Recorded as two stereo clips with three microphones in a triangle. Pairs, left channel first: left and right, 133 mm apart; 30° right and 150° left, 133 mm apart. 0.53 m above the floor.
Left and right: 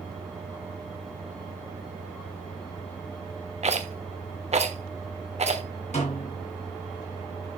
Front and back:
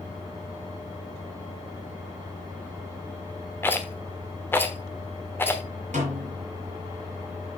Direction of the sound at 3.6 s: 100° right.